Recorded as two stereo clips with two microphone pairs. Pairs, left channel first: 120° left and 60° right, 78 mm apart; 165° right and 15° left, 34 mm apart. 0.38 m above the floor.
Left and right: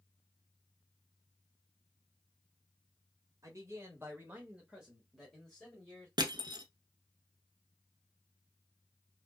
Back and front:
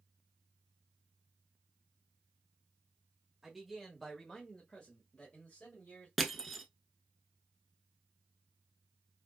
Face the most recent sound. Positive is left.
turn(degrees=-80)